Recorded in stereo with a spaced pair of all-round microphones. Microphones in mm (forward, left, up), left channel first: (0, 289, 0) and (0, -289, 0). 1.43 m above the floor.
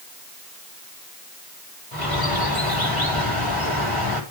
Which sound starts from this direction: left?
A bird, at 1.9 s.